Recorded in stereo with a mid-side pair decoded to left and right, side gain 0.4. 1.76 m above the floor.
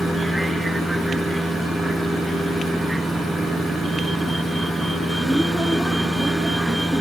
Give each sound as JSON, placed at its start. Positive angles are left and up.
{"t": 0.0, "sound": "a vehicle", "azimuth_deg": -10}